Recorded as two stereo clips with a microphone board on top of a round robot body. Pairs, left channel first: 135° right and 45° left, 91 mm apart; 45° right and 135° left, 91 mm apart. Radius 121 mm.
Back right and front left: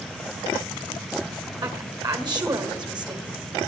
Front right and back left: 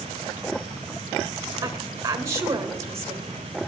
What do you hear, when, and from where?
1.6 s a woman speaking: 80° left, 2 m